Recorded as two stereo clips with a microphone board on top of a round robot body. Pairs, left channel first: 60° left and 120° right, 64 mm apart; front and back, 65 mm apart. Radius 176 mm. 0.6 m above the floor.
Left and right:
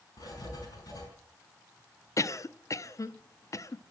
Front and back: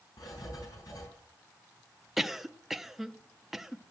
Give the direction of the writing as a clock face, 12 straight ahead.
11 o'clock.